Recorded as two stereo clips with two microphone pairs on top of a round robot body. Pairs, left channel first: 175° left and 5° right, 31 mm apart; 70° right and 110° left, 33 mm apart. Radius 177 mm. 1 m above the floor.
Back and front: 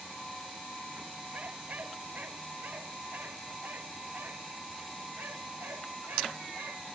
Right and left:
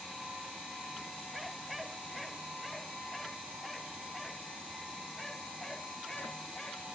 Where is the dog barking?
30° left; by 6.9 s 5° left.